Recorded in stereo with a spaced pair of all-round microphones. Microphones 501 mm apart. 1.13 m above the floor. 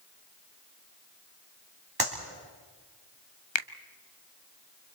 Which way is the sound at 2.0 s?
45° right (ahead or behind).